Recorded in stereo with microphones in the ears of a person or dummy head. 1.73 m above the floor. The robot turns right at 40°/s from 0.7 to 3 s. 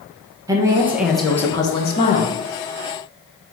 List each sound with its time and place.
0.5 s a woman speaking: 20° right, 0.8 m; by 2.4 s 50° left, 0.8 m